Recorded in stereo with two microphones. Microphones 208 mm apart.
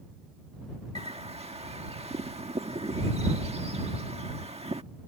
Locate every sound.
0.9 s a bird: 30° right (ahead or behind)